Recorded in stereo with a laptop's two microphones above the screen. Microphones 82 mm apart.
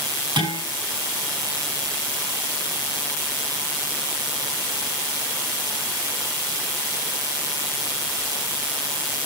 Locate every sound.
0.4 s dishes clattering: 65° right (ahead or behind), 6 m